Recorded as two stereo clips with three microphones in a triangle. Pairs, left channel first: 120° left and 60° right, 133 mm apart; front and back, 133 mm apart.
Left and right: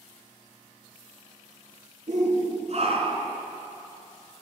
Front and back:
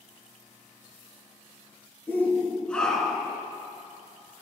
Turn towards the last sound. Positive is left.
turn(degrees=-95)